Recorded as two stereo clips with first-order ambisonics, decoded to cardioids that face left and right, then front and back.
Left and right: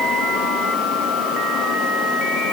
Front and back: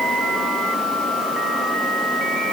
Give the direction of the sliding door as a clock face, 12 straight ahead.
I don't hear a sliding door.